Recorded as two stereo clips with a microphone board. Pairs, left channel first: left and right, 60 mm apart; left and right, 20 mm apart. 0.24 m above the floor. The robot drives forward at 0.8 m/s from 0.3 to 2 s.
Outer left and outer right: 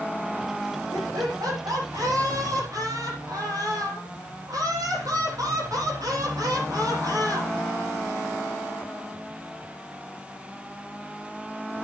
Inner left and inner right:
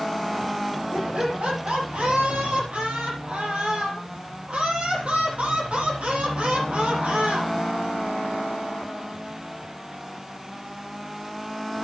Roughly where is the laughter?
Right.